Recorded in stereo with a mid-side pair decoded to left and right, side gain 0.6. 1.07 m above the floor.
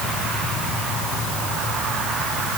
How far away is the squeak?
No squeak in this recording.